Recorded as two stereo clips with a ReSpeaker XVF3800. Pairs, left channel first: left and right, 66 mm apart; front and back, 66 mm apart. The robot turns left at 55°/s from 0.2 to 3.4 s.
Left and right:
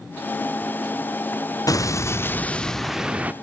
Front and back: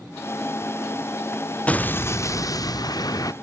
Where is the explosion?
65° left, 0.7 m; by 3.3 s 25° right, 0.7 m.